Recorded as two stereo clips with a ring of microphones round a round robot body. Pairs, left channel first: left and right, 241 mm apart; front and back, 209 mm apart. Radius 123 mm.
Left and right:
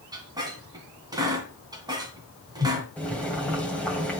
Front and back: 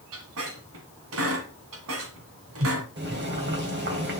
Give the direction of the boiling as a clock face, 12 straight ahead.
6 o'clock.